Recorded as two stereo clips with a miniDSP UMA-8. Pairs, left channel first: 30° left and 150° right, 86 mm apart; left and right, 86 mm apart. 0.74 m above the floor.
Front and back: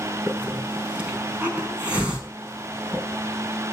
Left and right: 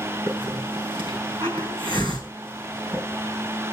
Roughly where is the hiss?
Right.